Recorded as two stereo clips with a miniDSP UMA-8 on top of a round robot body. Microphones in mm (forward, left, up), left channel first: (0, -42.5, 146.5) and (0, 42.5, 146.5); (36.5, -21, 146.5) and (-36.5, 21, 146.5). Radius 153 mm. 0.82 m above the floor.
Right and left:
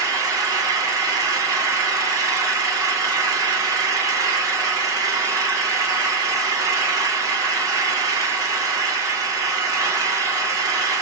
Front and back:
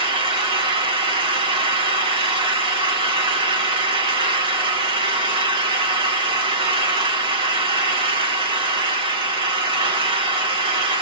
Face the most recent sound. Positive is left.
turn(degrees=140)